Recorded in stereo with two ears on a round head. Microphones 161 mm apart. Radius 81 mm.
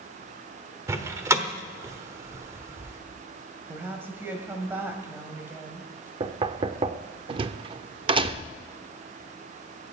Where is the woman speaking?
10° right (ahead or behind), 2 m.